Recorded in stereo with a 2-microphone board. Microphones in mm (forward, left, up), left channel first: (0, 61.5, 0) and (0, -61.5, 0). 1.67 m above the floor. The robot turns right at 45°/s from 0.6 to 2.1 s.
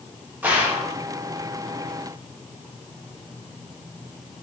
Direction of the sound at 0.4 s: 15° right (ahead or behind).